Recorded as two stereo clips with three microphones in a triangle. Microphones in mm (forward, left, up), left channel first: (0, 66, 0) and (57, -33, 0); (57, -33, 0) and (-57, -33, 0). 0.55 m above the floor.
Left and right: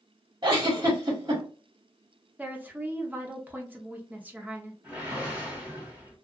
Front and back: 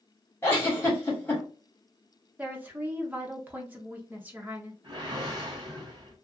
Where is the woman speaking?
120° right, 0.8 m.